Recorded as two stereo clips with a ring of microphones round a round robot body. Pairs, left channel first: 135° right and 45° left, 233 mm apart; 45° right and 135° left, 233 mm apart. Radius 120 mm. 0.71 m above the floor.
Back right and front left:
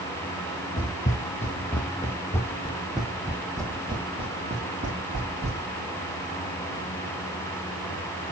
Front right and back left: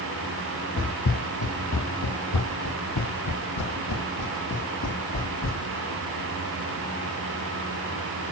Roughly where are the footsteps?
Right.